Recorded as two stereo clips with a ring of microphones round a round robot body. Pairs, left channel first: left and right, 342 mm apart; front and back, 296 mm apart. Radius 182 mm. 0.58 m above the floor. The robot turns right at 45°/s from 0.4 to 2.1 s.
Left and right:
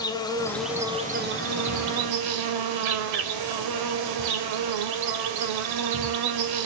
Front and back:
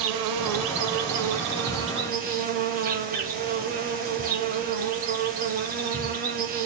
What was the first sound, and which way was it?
An insect, 170° left.